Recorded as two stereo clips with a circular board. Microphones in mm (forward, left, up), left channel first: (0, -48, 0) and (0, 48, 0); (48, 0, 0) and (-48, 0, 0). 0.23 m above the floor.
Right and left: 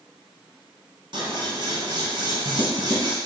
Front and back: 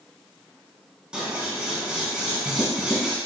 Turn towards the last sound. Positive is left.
turn(degrees=100)